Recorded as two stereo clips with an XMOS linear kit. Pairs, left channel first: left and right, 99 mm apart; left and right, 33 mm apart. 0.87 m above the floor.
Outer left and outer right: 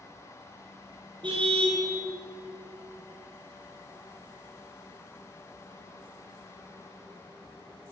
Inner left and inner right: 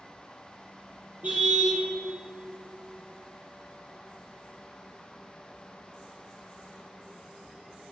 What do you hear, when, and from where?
1.2 s a car horn: 50° right (ahead or behind), 4 m